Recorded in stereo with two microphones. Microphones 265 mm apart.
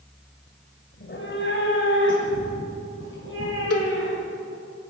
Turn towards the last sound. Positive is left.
turn(degrees=65)  # may be behind; listen again after turning